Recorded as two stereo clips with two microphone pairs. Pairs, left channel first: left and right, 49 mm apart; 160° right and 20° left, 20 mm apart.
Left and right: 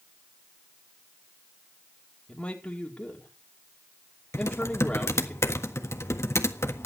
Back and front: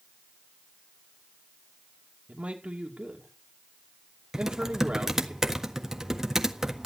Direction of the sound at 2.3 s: 25° left.